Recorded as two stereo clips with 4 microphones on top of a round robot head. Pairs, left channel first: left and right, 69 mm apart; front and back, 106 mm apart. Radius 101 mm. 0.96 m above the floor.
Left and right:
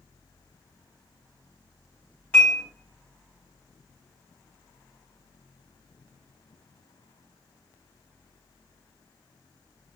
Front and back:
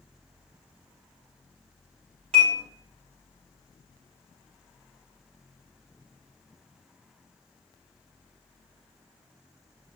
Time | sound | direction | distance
2.3 | dishes clattering | 160° left | 5 m